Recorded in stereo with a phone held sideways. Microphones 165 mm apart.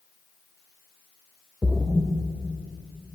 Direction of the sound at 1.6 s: 10° right (ahead or behind).